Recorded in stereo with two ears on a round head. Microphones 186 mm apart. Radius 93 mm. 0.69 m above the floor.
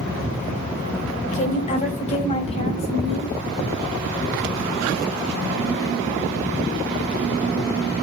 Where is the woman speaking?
35° left (ahead or behind), 2.5 m; by 3.3 s 30° left (ahead or behind), 4.5 m.